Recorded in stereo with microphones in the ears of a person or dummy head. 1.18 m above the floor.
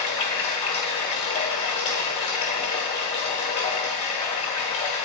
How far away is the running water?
About 0.8 m.